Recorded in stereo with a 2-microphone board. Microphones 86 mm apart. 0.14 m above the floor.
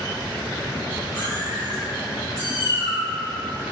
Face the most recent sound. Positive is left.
turn(degrees=-35)  # may be behind; listen again after turning